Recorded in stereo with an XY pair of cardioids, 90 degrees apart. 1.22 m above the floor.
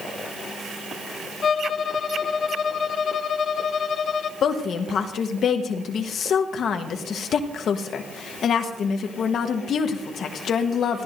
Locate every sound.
1.4 s a violin: 60° left, 0.9 m
4.4 s a woman speaking: 70° left, 1.2 m